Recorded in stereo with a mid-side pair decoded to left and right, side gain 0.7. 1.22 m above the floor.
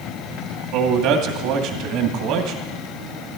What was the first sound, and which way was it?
A man speaking, 65° right.